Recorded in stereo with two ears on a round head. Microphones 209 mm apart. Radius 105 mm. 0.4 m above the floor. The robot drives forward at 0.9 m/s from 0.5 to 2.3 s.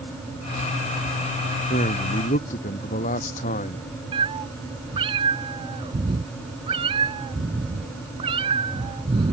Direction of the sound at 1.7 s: 35° left (ahead or behind).